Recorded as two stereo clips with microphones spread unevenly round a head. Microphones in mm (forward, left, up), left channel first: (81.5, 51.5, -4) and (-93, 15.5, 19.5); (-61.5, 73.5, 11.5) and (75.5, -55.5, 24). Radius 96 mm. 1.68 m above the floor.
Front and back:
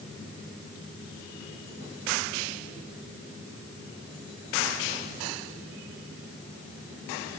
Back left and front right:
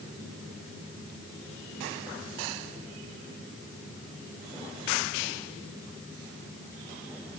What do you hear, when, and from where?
Only background noise.